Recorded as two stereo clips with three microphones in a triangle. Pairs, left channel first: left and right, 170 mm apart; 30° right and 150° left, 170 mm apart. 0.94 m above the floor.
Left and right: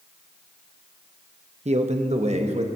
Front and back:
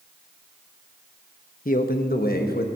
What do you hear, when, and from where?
1.6 s a man speaking: 50° right, 0.8 m; by 2.7 s 40° right, 1.3 m